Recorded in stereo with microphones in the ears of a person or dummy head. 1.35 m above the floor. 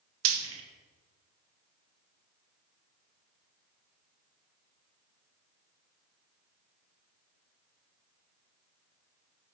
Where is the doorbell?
I don't hear a doorbell.